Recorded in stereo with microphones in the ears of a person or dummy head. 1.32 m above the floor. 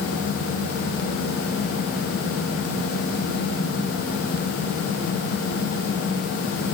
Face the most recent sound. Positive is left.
No sound to turn to.